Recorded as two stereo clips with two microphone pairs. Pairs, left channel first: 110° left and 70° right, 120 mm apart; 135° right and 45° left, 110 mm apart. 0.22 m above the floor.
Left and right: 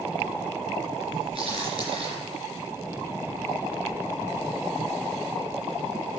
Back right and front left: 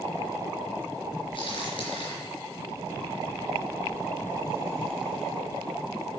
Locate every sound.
1.4 s a crack: 105° right, 3.5 m